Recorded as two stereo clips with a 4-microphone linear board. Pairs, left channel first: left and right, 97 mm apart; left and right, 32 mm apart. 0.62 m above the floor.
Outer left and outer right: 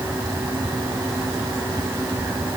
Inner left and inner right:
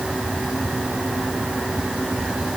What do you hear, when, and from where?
Only background noise.